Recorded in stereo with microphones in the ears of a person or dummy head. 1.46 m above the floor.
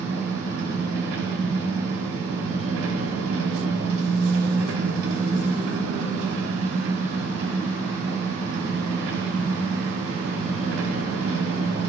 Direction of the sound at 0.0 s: 85° right.